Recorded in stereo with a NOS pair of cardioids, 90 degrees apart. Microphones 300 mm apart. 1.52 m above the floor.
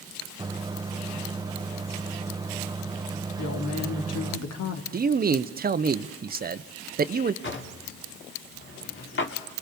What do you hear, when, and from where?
0.4 s a microwave: 15° right, 0.9 m
3.4 s a woman speaking: 55° left, 3 m
4.9 s a man speaking: 30° right, 0.9 m
7.4 s a drawer: 40° left, 2.5 m